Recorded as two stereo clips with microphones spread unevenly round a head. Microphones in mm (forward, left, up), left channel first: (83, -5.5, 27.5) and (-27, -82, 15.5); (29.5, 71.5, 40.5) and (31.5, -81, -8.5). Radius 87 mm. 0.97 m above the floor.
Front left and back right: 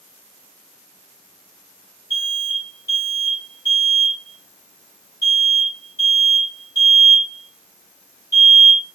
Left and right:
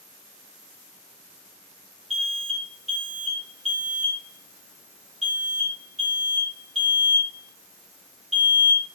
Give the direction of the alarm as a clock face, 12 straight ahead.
5 o'clock.